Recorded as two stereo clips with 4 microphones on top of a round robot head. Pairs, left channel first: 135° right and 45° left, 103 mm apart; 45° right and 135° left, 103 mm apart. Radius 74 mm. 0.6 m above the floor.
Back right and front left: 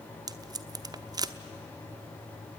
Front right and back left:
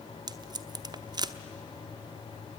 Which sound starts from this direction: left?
Tape being pulled, at 0.3 s.